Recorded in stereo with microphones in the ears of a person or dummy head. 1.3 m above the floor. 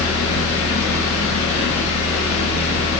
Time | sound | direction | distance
0.0 | a fan | 85° left | 1.4 m